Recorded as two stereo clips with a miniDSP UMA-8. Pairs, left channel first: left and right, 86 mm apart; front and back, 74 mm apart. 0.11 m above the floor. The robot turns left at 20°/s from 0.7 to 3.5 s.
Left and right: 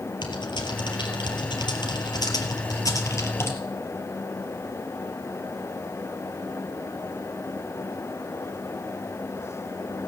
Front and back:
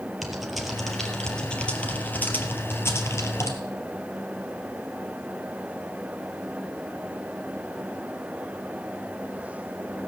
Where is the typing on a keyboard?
90° left, 2.5 m; by 3.6 s 35° left, 2.5 m.